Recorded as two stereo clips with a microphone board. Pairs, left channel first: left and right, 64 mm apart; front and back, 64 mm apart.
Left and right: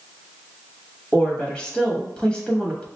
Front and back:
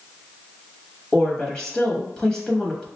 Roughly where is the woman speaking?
Ahead left.